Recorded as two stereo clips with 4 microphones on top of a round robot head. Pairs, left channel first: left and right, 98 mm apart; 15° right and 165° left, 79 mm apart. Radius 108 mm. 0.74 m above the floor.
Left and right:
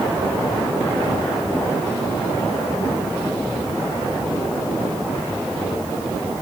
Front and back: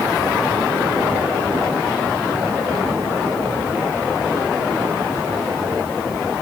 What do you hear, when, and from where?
Only background noise.